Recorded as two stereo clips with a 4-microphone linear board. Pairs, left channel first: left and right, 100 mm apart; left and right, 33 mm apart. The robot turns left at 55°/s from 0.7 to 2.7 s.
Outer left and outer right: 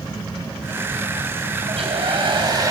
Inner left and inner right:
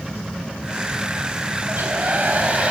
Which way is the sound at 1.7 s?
85° right.